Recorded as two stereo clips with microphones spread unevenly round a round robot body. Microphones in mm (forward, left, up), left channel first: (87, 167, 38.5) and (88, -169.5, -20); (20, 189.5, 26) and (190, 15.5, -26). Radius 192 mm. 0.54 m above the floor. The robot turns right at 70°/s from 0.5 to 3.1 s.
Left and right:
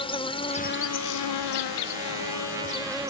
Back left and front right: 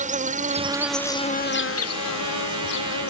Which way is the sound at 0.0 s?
10° left.